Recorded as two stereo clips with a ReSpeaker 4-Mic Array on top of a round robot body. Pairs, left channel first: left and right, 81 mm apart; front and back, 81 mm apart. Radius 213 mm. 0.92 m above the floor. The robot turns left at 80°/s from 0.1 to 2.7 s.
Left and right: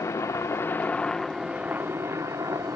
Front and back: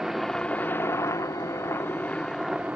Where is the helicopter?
95° left; by 2.8 s 110° right.